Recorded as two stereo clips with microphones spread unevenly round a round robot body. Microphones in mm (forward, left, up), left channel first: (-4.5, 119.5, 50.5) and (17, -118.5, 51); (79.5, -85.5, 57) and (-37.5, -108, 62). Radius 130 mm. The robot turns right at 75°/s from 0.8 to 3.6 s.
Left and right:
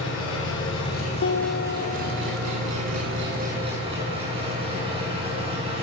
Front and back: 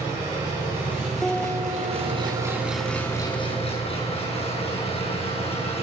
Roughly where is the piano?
Left.